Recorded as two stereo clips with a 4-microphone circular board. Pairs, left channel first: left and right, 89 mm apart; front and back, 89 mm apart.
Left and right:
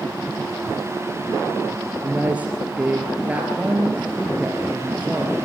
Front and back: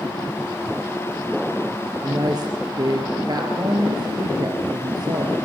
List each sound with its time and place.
2.0 s a woman speaking: 160° right, 2.5 m